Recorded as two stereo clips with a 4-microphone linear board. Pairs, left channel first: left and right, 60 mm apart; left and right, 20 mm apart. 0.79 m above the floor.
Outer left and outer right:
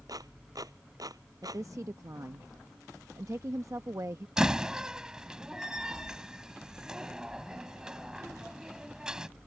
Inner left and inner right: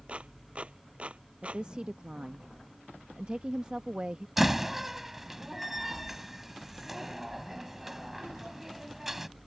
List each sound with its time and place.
0.1 s a clap: 80° right
1.4 s a woman speaking: 55° right (ahead or behind)
4.4 s a door slam: 10° right (ahead or behind)